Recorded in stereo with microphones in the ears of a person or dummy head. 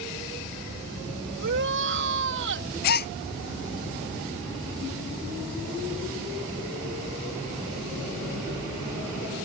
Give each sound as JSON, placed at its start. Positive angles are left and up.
{"t": 1.4, "sound": "a shout", "side_deg": -65}
{"t": 2.8, "sound": "a gasp", "side_deg": 55}